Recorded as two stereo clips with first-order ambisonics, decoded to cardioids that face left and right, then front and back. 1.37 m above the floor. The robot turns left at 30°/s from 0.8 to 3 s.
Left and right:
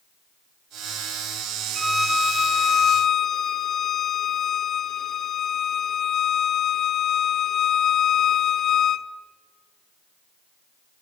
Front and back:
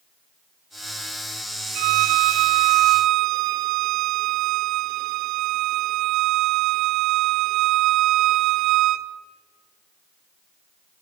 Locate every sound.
1.8 s a violin: 160° right, 0.8 m; by 9.1 s 160° left, 0.8 m